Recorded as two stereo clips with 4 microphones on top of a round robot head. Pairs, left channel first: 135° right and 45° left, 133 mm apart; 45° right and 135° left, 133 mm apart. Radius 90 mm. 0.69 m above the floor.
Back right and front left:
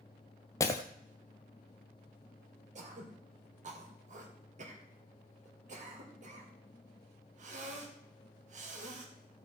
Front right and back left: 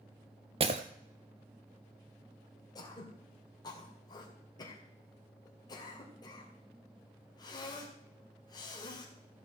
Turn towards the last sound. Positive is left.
turn(degrees=15)